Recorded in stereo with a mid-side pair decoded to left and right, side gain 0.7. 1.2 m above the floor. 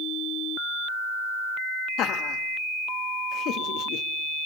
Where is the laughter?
50° left, 1.8 m.